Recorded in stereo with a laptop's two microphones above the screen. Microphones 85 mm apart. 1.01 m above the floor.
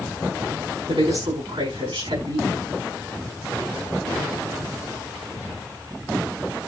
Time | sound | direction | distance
0.9 | a woman speaking | 75° right (ahead or behind) | 7 m